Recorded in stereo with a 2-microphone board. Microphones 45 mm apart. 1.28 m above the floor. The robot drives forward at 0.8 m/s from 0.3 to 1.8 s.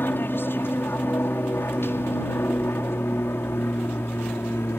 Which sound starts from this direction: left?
An aircraft, at 0.0 s.